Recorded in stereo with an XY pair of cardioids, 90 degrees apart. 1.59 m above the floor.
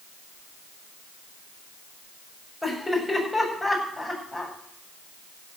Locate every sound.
2.6 s laughter: 10° left, 8 m